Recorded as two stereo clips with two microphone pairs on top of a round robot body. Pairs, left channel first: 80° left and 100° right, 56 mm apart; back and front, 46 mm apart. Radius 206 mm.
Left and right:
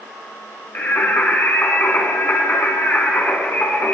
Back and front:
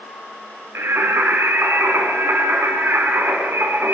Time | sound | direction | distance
0.8 | singing | 25° left | 4 m